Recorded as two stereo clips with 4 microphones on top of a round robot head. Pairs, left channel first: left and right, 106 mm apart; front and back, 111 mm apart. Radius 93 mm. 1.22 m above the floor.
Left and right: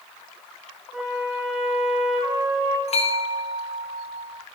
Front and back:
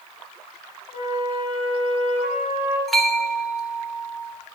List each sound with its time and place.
0.9 s a flute: 5° right, 2 m
2.9 s a bell: 90° left, 1.1 m